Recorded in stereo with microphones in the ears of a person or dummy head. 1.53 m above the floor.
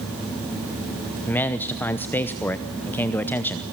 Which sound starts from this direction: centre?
A man speaking, at 1.3 s.